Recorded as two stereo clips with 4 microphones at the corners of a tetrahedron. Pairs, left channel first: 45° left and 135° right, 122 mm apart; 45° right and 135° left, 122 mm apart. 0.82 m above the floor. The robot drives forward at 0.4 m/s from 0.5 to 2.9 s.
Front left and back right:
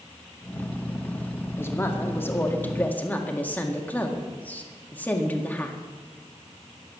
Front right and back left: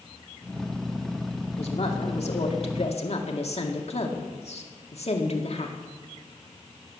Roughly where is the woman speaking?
Ahead right.